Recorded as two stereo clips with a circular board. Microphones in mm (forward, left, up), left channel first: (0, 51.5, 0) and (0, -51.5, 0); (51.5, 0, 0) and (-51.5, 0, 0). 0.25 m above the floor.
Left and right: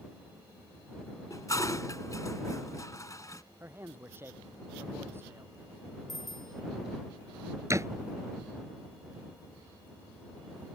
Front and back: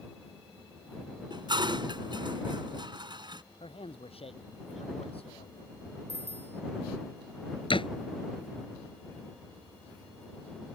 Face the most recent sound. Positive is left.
turn(degrees=-30)